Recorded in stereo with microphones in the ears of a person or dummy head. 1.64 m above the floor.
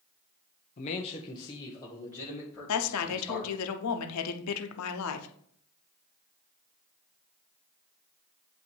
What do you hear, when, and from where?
0.8 s a man speaking: 40° left (ahead or behind), 0.5 m; by 3.5 s 5° left (ahead or behind), 2 m
2.7 s a woman speaking: 80° left, 0.8 m